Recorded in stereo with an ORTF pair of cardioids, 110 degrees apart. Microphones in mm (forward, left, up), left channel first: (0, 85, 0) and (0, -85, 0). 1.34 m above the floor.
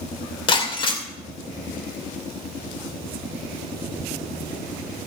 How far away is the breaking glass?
About 2.5 m.